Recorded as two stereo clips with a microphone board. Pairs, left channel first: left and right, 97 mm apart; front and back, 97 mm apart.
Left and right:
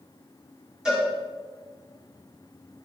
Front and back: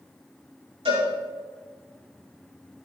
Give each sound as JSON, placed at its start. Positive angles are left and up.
{"t": 0.8, "sound": "a cowbell", "azimuth_deg": -175, "distance_m": 6.0}